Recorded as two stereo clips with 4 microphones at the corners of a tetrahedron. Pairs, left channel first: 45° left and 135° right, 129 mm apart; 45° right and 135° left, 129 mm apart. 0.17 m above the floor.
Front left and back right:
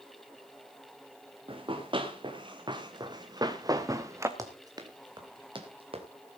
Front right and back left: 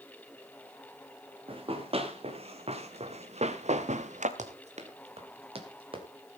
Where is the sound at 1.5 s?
Straight behind, 3 m; by 4.3 s 155° left, 1.6 m.